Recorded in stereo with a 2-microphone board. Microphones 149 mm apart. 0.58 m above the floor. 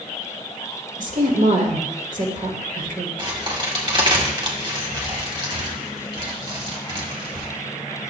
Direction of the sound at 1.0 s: 60° right (ahead or behind).